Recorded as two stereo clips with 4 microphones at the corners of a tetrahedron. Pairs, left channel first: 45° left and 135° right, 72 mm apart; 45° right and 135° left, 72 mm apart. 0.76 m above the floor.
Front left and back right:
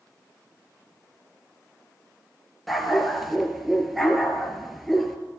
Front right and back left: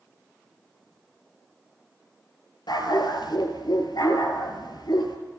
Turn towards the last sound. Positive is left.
turn(degrees=-45)